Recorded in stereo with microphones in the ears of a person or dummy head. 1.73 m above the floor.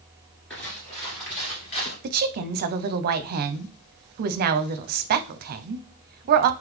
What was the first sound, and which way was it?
Footsteps, 10° left (ahead or behind).